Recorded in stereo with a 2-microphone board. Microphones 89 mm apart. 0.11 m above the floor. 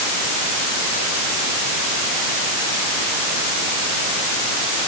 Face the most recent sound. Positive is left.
No sound to turn to.